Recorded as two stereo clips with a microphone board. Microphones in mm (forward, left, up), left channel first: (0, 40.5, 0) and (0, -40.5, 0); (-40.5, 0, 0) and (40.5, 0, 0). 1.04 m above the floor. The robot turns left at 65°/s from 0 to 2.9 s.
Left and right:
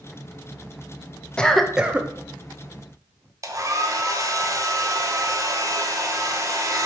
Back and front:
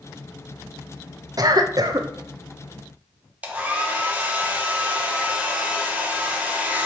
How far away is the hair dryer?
About 0.8 m.